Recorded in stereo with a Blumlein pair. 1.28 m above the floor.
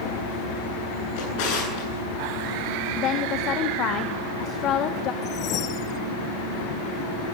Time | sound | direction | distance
1.2 | a drawer | 45° left | 9.5 m
3.0 | a woman speaking | 30° left | 1.5 m
5.2 | a whoosh | 35° left | 0.9 m